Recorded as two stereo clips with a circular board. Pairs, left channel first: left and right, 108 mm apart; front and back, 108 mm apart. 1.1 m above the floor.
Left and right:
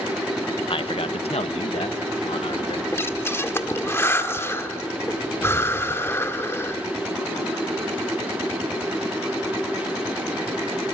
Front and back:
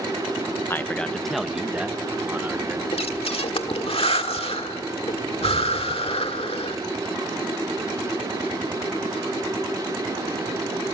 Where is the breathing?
25° left, 1.5 m.